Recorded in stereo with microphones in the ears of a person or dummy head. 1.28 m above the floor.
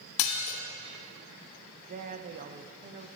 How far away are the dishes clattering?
About 0.9 m.